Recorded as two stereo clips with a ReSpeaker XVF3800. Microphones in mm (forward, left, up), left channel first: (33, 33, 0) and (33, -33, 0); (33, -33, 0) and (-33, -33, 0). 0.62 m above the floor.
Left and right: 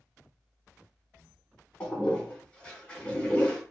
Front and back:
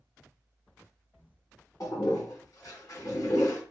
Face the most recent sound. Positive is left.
turn(degrees=25)